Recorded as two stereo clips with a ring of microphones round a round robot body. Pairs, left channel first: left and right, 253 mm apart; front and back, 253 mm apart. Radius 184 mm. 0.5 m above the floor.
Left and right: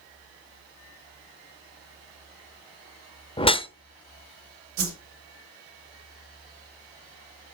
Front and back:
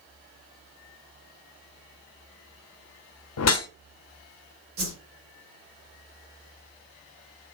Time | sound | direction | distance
3.4 | a whoosh | 20° left | 0.9 m
4.8 | a whoosh | 125° right | 1.2 m